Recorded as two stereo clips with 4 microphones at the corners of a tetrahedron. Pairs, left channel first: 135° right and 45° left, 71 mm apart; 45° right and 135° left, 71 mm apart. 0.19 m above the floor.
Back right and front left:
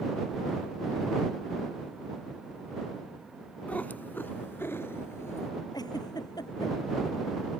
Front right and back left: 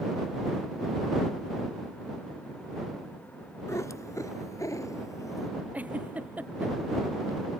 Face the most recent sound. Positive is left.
turn(degrees=-155)